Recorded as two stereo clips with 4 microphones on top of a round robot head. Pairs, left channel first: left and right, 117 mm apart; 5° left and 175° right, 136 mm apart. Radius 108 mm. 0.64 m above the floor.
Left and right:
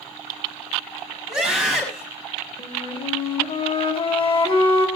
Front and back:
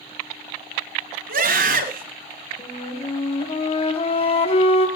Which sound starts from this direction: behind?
A scream, at 1.3 s.